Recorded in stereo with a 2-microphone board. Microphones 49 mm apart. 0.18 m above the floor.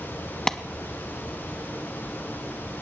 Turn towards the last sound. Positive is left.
turn(degrees=10)  # may be behind; listen again after turning